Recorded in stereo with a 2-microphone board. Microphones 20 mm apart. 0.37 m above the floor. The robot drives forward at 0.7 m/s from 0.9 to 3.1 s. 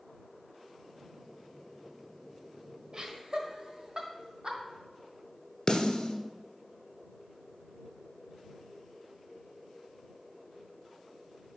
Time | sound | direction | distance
2.9 | laughter | 40° right (ahead or behind) | 1.3 m
5.7 | a snare drum | 50° left (ahead or behind) | 1.1 m